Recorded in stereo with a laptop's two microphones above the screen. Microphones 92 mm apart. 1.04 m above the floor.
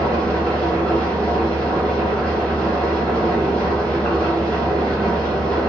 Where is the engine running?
10° left (ahead or behind), 1.6 m.